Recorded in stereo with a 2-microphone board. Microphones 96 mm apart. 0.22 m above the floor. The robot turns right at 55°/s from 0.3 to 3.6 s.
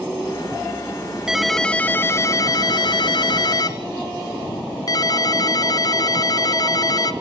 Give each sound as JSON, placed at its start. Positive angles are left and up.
{"t": 1.3, "sound": "a ringtone", "azimuth_deg": -10, "distance_m": 1.1}